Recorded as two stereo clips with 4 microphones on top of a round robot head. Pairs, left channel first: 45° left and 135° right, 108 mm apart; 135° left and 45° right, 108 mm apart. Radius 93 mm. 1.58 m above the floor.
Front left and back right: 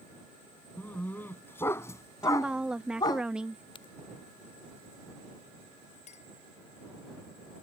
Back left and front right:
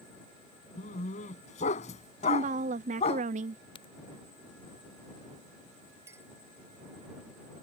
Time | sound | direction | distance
0.8 | a dog barking | 125° left | ?
2.2 | a woman speaking | 50° right | ?
3.8 | a crack | 90° left | ?
6.1 | a clink | 20° left | ?